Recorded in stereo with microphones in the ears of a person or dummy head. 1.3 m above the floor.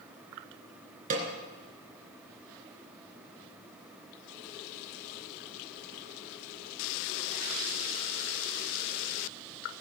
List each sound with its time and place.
1.1 s a snare drum: 45° right (ahead or behind), 2.5 m